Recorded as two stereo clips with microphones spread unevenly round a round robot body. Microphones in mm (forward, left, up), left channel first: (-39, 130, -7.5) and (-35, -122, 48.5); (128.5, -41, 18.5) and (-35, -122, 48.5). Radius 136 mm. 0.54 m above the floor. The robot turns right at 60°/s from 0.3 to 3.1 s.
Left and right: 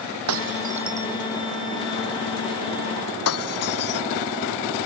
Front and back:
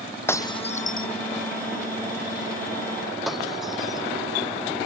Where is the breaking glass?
50° right; by 4.0 s 120° left.